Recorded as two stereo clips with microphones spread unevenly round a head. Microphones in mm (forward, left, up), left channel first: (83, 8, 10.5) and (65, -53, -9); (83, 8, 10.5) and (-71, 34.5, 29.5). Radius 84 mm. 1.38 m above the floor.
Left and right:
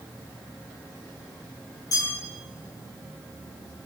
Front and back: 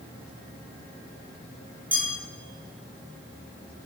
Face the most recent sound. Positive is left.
turn(degrees=90)